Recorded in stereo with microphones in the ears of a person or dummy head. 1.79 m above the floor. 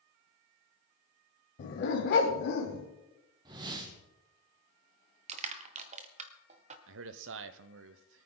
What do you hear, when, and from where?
1.6 s a dog barking: 45° left (ahead or behind), 2 m; by 2.9 s 55° left (ahead or behind), 2.5 m
3.5 s a whoosh: 25° right (ahead or behind), 1.4 m
5.3 s crushing: 40° right (ahead or behind), 1.2 m
6.9 s a man speaking: 75° right (ahead or behind), 0.9 m